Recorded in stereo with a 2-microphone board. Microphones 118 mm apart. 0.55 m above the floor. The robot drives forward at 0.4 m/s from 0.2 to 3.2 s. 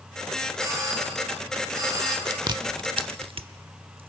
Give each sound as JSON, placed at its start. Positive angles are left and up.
{"t": 0.6, "sound": "a doorbell", "side_deg": -30, "distance_m": 5.0}
{"t": 2.3, "sound": "chewing", "side_deg": -35, "distance_m": 1.0}